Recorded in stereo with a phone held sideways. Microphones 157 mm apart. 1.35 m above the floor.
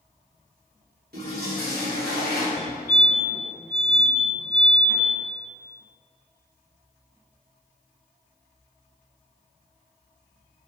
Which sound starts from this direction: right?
A toilet flushing, at 1.1 s.